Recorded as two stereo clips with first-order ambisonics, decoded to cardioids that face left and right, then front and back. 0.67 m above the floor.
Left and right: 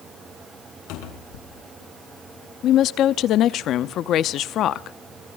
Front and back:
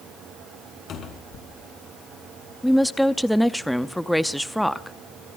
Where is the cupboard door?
60° left, 3.5 m.